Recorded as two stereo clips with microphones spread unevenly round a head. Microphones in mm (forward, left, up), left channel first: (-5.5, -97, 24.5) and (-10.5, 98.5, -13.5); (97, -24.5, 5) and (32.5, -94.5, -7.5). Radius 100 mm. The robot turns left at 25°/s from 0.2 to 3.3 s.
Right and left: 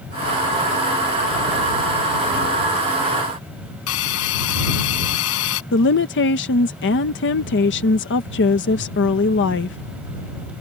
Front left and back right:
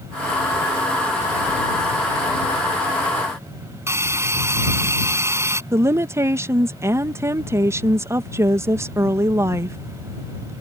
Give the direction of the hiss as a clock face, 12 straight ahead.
2 o'clock.